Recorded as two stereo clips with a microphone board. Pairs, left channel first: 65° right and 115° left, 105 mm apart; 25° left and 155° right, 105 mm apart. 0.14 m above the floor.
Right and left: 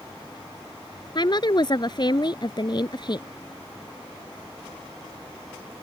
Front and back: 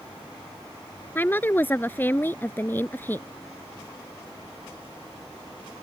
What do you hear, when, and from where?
1.1 s a woman speaking: 40° right